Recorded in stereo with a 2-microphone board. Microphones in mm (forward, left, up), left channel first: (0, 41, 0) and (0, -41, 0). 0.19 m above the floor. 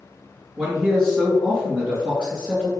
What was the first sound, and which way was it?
A man speaking, 15° right (ahead or behind).